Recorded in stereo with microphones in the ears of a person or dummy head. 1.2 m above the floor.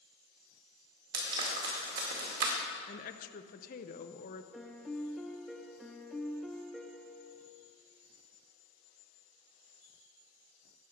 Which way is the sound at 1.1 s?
60° right (ahead or behind).